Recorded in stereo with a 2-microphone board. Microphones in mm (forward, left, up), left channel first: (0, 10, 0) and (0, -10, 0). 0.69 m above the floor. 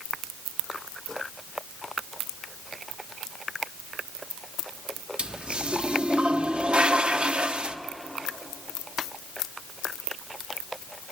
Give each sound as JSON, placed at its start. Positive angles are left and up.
{"t": 5.2, "sound": "a toilet flushing", "side_deg": -55, "distance_m": 1.0}